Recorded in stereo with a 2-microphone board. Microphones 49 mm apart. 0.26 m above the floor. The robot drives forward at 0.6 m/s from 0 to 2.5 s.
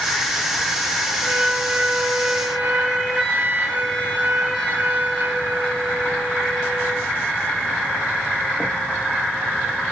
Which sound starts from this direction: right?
A flute, at 1.2 s.